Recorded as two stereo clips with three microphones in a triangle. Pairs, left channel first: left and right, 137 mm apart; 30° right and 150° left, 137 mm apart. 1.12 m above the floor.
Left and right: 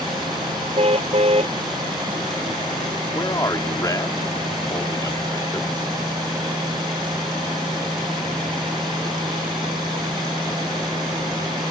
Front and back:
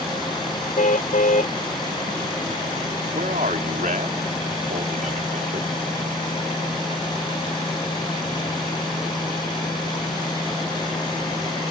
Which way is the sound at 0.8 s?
45° right.